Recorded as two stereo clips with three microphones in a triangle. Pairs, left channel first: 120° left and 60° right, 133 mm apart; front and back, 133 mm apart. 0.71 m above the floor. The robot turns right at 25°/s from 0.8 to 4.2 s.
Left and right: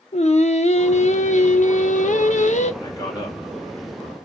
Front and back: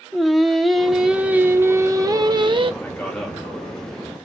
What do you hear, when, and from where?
0.1 s singing: 90° left, 0.5 m; by 2.7 s 140° left, 0.5 m
2.8 s a man speaking: 70° left, 1.5 m; by 3.4 s 85° left, 1.5 m